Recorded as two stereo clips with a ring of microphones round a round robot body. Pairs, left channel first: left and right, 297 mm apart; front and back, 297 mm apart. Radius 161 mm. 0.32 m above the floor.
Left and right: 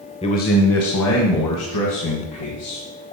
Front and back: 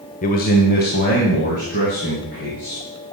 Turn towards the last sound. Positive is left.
turn(degrees=65)